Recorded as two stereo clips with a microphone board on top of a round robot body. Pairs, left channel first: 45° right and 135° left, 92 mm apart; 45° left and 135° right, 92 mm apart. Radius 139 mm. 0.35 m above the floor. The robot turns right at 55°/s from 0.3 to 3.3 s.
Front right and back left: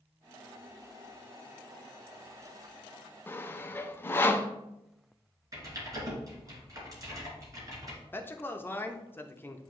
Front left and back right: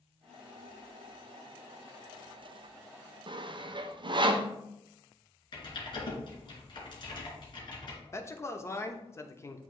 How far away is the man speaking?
About 0.9 m.